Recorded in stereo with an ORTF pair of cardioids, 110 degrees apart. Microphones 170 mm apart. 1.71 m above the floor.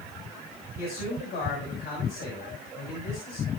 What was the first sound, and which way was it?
A man speaking, 70° left.